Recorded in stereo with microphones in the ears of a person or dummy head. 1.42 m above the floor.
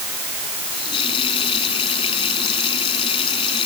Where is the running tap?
30° left (ahead or behind).